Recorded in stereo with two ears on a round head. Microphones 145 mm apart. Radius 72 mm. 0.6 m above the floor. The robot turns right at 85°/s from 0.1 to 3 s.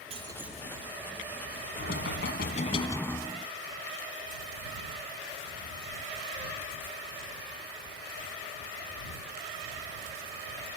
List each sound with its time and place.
0.1 s breaking glass: 40° right; by 0.9 s 25° left
1.8 s knocking: 60° left; by 3.5 s 165° left